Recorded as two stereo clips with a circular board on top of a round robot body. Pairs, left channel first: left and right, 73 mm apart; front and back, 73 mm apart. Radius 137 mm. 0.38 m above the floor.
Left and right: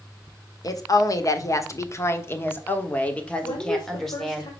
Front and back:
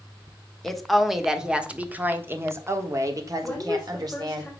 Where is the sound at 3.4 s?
80° left, 2 m.